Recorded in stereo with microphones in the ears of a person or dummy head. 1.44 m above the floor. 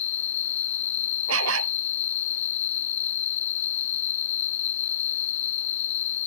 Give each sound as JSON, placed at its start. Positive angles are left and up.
{"t": 0.0, "sound": "an insect", "side_deg": 40}
{"t": 1.3, "sound": "a dog barking", "side_deg": -80}